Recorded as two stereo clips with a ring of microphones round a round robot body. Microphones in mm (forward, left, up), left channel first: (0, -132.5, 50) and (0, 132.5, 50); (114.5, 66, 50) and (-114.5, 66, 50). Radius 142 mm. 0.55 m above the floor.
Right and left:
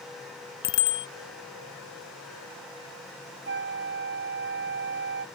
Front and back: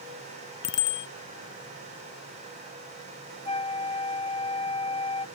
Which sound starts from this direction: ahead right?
A bicycle bell, at 0.6 s.